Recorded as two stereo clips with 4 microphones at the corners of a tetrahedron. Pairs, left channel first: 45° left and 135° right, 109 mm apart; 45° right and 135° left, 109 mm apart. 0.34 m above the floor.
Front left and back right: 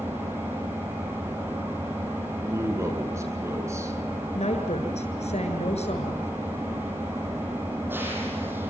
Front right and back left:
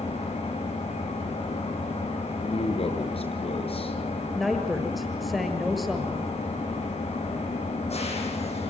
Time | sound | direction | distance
0.0 | an engine running | 65° right | 9 m
2.4 | a man speaking | 70° right | 6 m
4.3 | a woman speaking | 45° left | 7 m